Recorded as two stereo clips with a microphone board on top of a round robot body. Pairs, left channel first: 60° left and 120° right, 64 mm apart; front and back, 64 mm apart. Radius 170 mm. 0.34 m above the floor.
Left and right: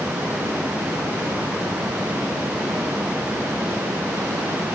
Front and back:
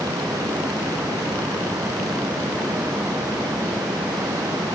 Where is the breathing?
I don't hear breathing.